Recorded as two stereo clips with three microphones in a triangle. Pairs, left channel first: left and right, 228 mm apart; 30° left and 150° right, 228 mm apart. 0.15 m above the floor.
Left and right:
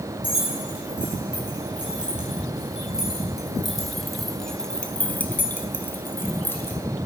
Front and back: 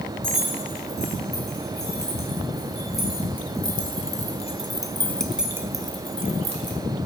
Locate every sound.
0.2 s keys jangling: 5° right, 4.5 m; by 6.8 s 170° left, 1.7 m